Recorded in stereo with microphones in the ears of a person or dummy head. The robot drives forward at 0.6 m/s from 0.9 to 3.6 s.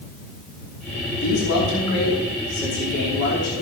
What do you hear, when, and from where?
1.2 s a man speaking: 70° left (ahead or behind), 4.5 m; by 3.6 s 50° left (ahead or behind), 5 m